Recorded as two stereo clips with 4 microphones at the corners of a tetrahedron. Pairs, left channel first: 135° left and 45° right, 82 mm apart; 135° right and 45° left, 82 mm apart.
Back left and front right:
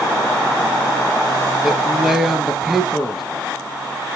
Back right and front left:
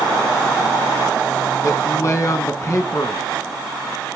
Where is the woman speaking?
130° right, 1.4 m.